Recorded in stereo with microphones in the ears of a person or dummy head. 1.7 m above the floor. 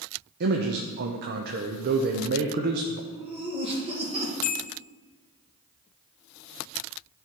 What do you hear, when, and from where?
0.4 s a man speaking: 55° right (ahead or behind), 0.6 m
3.1 s laughter: 35° right (ahead or behind), 2.5 m
4.4 s a bell: 40° left (ahead or behind), 0.6 m